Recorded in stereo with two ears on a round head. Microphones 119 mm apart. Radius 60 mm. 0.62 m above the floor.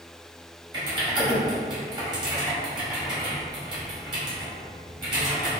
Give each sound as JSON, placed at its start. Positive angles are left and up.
{"t": 0.7, "sound": "typing on a keyboard", "side_deg": -35, "distance_m": 2.0}